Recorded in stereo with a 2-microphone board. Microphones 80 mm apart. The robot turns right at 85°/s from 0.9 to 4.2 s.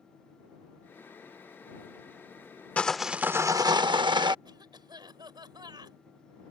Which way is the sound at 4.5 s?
70° right (ahead or behind).